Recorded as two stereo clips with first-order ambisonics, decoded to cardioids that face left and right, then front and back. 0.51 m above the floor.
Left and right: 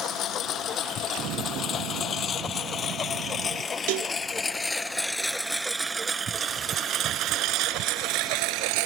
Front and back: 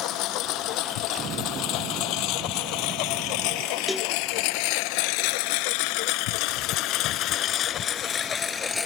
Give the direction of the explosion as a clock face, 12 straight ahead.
4 o'clock.